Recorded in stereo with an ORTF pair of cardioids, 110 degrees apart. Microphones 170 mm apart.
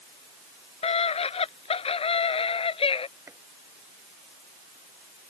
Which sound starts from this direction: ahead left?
A scream, at 0.8 s.